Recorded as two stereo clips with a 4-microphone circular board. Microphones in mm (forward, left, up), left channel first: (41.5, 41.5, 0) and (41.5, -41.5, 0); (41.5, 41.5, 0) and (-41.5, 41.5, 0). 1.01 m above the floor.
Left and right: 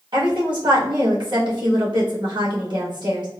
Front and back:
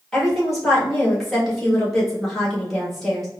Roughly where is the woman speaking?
Right.